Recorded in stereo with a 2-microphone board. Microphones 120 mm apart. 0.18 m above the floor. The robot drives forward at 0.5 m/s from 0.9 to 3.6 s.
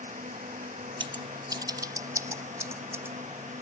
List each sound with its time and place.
0.0 s a drone: 80° right
1.0 s scissors: 45° right (ahead or behind); by 3.1 s 20° right (ahead or behind)